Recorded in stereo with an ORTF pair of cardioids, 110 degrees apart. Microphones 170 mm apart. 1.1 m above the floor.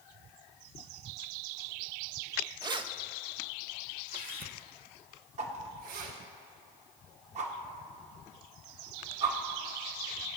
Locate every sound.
2.6 s keys jangling: 20° right, 0.7 m; by 6.2 s 60° right, 3 m
5.4 s a whoosh: 45° right, 1.8 m